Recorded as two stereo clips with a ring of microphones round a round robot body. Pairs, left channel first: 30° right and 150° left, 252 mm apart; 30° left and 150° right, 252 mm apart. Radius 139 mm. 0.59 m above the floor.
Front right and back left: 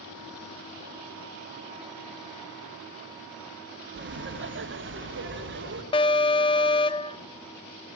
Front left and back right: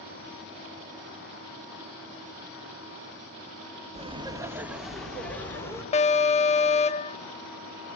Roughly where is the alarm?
Ahead.